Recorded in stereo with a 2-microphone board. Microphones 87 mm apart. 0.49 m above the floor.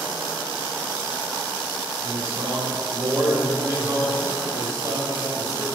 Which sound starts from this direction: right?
A man speaking, at 2.0 s.